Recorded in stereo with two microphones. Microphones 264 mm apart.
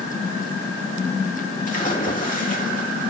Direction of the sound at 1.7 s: 30° left (ahead or behind).